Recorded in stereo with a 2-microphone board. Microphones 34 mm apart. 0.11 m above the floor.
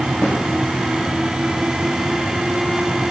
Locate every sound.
0.2 s a snare drum: 55° left (ahead or behind), 7.5 m